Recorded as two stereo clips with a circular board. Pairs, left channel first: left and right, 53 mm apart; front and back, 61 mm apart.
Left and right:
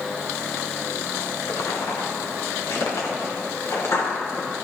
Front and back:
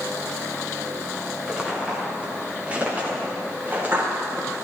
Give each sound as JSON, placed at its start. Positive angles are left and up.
{"t": 1.5, "sound": "footsteps", "azimuth_deg": 105, "distance_m": 4.0}